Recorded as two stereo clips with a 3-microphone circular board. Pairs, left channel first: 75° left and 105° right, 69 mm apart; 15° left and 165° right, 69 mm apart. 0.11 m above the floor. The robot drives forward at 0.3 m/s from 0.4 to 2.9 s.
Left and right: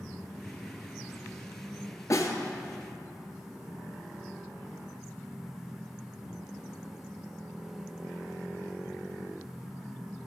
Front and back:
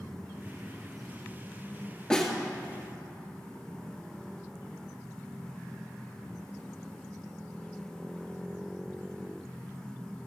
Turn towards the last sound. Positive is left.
turn(degrees=100)